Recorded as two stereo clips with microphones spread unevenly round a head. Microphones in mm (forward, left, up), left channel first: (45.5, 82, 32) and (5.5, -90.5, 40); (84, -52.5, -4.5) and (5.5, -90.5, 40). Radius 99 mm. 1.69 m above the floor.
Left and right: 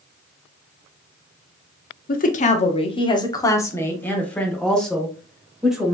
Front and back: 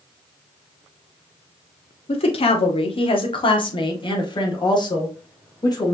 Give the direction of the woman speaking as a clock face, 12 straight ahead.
11 o'clock.